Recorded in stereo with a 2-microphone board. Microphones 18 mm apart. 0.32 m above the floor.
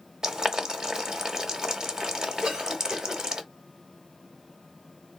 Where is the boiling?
35° right (ahead or behind), 0.8 m.